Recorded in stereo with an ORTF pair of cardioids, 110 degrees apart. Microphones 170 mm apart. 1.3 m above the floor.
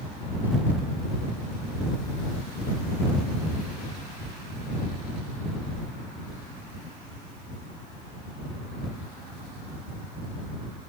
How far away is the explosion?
No explosion in this recording.